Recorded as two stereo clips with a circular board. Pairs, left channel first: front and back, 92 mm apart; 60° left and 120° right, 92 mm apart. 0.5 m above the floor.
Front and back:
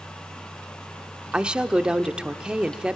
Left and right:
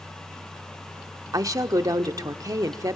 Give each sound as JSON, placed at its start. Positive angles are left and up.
{"t": 1.3, "sound": "a woman speaking", "azimuth_deg": -105, "distance_m": 0.8}